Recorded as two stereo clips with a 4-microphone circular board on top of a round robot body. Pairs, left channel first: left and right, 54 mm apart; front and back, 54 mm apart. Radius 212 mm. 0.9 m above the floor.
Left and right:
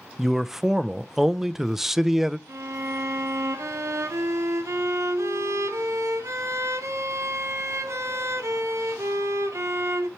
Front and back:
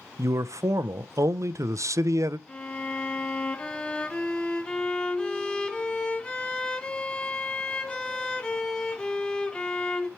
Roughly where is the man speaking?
Behind.